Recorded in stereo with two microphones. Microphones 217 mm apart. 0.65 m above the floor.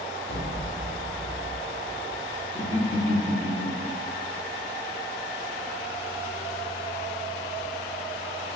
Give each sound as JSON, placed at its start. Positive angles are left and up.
{"t": 0.3, "sound": "an explosion", "side_deg": 60, "distance_m": 1.1}
{"t": 2.5, "sound": "laughter", "side_deg": 10, "distance_m": 1.4}